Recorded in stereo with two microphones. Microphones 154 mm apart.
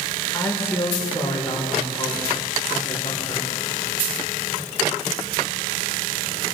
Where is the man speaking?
15° left (ahead or behind), 4.5 m.